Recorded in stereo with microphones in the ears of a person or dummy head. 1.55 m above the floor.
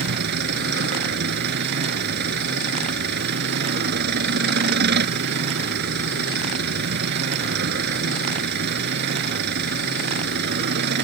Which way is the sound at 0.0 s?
60° right (ahead or behind).